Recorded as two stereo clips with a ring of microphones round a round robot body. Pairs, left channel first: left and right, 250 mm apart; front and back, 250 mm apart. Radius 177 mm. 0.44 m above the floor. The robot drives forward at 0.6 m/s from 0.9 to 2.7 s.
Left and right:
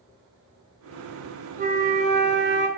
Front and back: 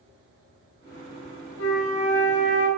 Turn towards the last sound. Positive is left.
turn(degrees=-55)